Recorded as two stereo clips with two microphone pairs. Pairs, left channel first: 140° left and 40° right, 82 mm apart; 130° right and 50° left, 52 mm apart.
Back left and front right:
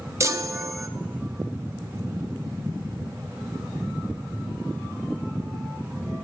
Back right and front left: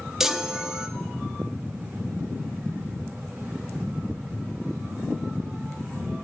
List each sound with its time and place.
0.2 s a chime: 25° right, 0.7 m